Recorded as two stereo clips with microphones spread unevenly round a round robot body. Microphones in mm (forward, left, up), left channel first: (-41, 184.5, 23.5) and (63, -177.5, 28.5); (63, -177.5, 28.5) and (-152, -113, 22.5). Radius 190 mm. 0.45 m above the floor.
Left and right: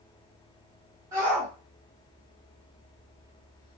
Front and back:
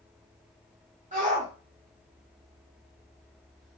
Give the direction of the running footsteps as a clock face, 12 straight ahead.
I don't hear running footsteps.